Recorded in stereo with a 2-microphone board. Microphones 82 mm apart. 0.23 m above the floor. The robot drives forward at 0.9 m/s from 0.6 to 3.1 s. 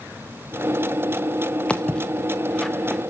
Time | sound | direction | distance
1.7 | footsteps | 15° left (ahead or behind) | 1.5 m